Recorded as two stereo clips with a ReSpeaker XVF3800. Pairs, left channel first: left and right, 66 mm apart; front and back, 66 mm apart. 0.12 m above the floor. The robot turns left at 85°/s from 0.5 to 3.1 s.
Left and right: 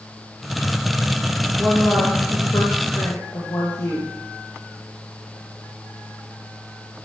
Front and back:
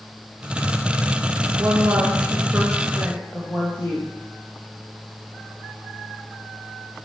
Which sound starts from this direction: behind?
A woman speaking, at 1.6 s.